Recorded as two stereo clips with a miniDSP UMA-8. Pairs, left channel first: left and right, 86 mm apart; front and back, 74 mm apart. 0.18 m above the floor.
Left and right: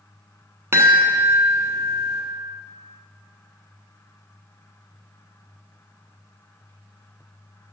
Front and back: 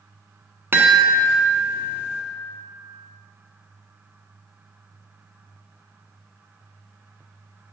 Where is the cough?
I don't hear a cough.